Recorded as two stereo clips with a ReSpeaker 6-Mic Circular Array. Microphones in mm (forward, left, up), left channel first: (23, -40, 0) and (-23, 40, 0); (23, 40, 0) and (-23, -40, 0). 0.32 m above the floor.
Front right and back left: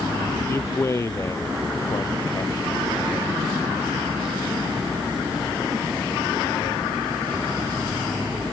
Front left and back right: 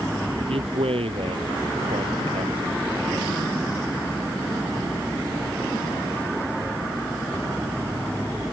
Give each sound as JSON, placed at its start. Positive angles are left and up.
{"t": 0.5, "sound": "a man speaking", "azimuth_deg": -120}